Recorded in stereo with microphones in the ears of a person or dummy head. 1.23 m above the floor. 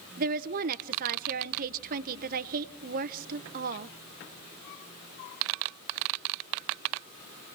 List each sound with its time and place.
0.2 s a woman speaking: 50° right (ahead or behind), 0.8 m